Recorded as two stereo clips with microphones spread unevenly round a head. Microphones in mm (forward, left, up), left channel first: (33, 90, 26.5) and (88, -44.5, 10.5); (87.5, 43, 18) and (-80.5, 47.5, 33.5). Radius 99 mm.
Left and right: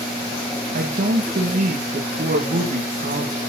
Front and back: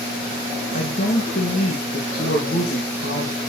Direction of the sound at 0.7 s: 50° right.